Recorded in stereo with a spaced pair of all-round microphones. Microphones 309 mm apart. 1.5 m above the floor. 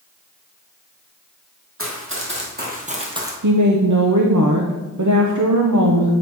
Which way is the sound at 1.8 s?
45° right (ahead or behind).